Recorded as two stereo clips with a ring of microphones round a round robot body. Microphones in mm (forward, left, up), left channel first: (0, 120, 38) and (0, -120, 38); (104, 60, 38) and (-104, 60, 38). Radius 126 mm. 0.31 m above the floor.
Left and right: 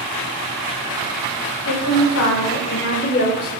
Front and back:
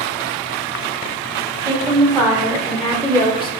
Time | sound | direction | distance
1.6 | a woman speaking | 115° left | 2.0 m